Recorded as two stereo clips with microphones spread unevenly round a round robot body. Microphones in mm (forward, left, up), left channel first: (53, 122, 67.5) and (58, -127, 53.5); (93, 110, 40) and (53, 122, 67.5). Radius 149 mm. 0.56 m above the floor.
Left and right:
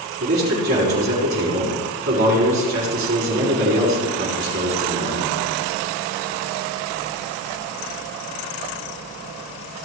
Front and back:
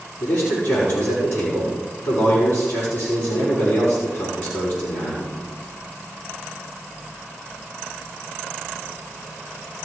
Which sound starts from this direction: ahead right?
A man speaking, at 0.2 s.